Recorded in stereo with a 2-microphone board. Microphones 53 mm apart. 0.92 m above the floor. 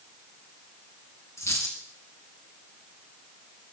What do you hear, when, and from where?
1.4 s a dropped coin: 75° left (ahead or behind), 2.5 m